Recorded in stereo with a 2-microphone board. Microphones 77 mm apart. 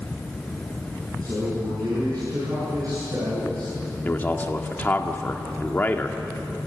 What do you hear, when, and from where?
1.2 s a man speaking: 55° right (ahead or behind), 8.5 m
4.0 s a man speaking: 25° left (ahead or behind), 1.8 m